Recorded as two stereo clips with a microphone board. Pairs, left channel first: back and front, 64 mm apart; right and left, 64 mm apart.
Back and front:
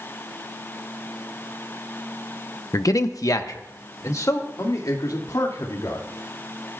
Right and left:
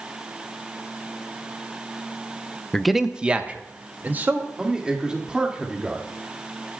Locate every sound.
2.7 s a man speaking: 170° right, 0.6 m; by 4.5 s 145° left, 2.5 m
4.6 s a man speaking: 165° left, 1.9 m